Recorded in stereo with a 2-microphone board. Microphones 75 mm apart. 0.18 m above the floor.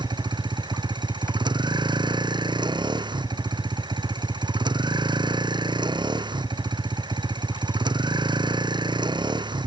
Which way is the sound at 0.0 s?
85° right.